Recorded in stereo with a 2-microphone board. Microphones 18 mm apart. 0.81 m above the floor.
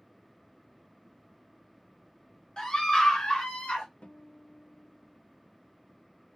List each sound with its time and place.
2.6 s a scream: 45° left (ahead or behind), 1.2 m; by 3.9 s 60° left (ahead or behind), 1.6 m
4.0 s a guitar: 75° left (ahead or behind), 0.6 m